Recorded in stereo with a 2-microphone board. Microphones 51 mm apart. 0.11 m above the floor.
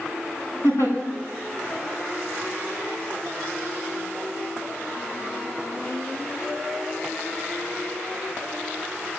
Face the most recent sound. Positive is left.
turn(degrees=70)  # may be behind; listen again after turning